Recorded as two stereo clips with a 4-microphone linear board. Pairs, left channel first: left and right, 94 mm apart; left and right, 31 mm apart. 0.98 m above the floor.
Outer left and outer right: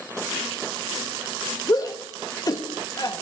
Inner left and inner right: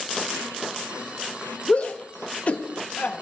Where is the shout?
40° left (ahead or behind), 1.1 m.